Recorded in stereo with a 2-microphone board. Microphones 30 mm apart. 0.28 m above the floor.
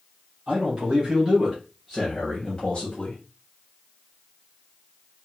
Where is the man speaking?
40° right (ahead or behind), 1.5 m; by 3.2 s 30° left (ahead or behind), 1.3 m.